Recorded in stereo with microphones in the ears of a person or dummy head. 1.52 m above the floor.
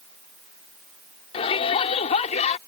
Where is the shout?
30° left (ahead or behind); by 2.6 s 40° left (ahead or behind).